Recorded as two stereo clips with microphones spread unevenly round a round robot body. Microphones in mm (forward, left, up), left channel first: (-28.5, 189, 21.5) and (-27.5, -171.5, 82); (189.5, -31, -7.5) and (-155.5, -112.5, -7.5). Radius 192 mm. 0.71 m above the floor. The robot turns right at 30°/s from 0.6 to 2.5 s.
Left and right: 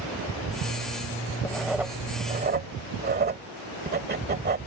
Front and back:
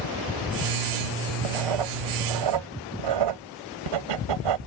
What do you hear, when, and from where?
1.4 s writing: 175° left; by 4.6 s 155° right